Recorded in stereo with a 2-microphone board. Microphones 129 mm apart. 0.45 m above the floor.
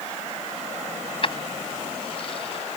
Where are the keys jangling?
45° left (ahead or behind).